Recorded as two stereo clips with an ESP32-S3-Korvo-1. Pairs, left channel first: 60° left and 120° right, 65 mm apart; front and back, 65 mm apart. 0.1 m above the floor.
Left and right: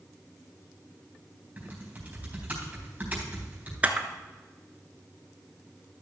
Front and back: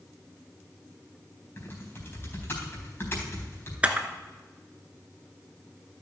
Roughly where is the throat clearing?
No throat clearing in this recording.